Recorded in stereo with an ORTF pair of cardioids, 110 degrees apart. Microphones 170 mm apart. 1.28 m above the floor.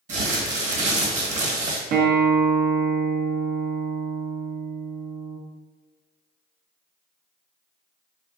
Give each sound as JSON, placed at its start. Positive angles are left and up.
{"t": 0.1, "sound": "crumpling", "azimuth_deg": -45, "distance_m": 1.1}
{"t": 1.9, "sound": "a guitar", "azimuth_deg": -60, "distance_m": 0.6}